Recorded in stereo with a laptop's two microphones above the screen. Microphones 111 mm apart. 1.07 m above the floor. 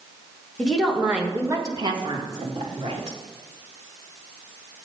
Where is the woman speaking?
10° left (ahead or behind), 1.4 m; by 3.2 s 60° right (ahead or behind), 2.5 m.